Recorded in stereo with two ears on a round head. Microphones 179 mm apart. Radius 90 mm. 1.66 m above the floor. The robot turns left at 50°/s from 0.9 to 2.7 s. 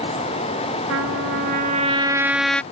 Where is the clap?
I don't hear a clap.